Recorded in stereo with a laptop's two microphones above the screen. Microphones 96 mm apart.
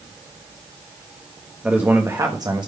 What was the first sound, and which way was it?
A man speaking, 15° right (ahead or behind).